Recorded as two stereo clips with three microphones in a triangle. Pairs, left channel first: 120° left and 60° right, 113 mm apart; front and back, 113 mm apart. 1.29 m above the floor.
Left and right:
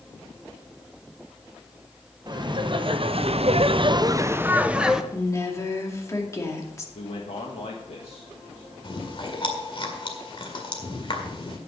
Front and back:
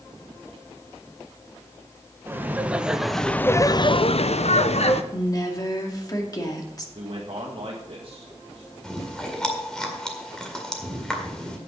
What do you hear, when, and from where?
2.3 s laughter: 110° right, 1.1 m; by 5.0 s 25° left, 1.0 m
5.1 s a woman speaking: 55° left, 2 m
7.0 s a man speaking: 145° left, 1.7 m
8.8 s chewing: 85° left, 2.0 m